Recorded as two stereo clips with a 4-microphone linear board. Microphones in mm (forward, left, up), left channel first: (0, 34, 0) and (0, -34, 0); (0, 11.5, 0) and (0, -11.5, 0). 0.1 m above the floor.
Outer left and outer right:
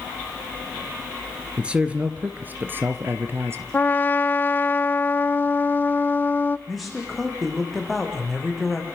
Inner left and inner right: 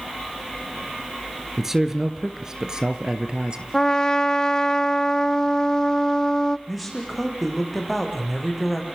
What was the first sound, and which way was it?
A man speaking, 15° right (ahead or behind).